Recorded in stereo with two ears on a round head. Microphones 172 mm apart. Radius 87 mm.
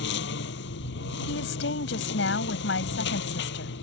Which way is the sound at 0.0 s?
65° left (ahead or behind).